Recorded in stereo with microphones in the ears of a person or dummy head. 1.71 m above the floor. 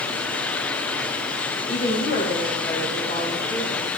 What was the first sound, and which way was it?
A woman speaking, 40° left (ahead or behind).